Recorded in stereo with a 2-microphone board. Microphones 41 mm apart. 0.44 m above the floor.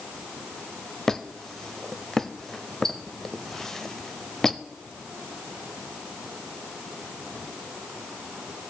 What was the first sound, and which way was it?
A squeak, 10° left (ahead or behind).